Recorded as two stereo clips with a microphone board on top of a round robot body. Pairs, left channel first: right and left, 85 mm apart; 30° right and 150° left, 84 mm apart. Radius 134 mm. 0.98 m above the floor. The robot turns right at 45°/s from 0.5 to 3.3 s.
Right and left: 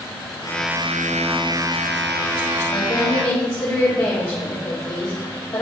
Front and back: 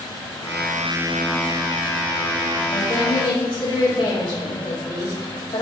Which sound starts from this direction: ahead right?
A woman speaking, at 2.7 s.